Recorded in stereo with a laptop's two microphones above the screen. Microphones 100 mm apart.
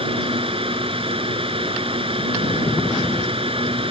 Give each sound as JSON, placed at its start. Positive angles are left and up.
{"t": 0.0, "sound": "a fan", "side_deg": -70}